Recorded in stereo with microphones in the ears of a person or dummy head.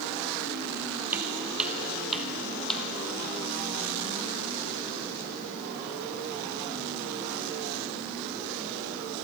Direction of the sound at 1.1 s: 10° right (ahead or behind).